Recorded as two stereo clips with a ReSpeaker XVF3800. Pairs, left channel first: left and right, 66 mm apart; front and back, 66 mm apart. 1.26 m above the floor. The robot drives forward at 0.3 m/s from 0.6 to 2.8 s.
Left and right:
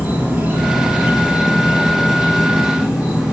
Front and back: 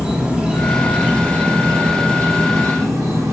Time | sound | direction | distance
0.0 | an insect | 120° right | 0.8 m